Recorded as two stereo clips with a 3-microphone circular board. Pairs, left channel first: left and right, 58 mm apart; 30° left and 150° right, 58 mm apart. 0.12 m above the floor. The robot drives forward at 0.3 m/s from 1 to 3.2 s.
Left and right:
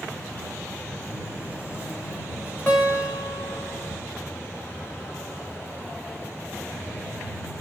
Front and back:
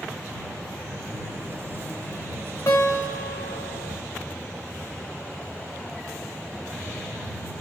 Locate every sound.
2.7 s a guitar: 40° left, 2.5 m